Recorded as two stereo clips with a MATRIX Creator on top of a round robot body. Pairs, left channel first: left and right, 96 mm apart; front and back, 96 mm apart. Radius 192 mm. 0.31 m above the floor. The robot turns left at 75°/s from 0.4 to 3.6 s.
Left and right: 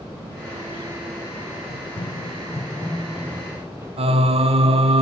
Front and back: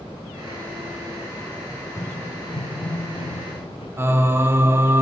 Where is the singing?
110° right, 0.9 m.